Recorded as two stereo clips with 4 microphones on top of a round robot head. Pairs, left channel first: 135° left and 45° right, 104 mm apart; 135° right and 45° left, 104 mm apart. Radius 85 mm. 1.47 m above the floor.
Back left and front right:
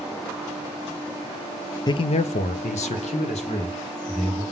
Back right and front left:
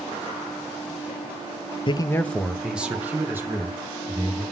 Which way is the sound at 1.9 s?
175° right.